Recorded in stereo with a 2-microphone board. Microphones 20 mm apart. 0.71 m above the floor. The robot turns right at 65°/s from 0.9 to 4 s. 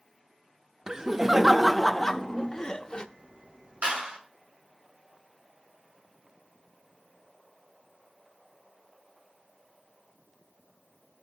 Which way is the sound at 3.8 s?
85° right.